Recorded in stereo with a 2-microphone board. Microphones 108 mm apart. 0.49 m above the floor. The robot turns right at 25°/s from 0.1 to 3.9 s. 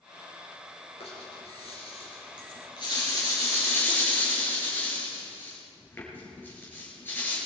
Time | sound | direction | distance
1.0 | a rattle | 85° left | 5.5 m